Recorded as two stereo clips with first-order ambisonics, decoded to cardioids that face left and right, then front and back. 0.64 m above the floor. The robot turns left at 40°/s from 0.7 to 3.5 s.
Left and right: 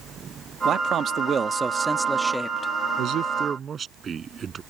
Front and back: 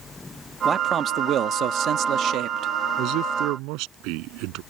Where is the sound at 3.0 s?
135° right; by 4.6 s 155° right.